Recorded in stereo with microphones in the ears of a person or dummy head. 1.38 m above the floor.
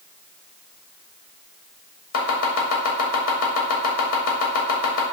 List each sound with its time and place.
2.1 s chopping: 80° left, 2.0 m